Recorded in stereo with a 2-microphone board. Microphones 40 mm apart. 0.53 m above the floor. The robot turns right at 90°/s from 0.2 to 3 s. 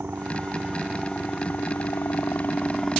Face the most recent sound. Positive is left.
turn(degrees=180)